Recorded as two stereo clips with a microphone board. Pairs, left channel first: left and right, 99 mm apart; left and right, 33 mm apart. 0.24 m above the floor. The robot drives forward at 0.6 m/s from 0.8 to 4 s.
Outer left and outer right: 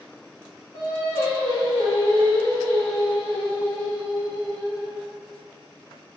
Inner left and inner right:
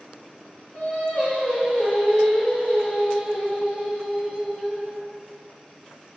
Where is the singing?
30° left (ahead or behind), 1.8 m; by 5.0 s 20° left (ahead or behind), 3 m.